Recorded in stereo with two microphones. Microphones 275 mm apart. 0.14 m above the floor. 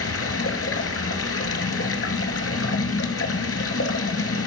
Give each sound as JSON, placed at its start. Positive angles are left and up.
{"t": 0.0, "sound": "running water", "side_deg": 60, "distance_m": 0.8}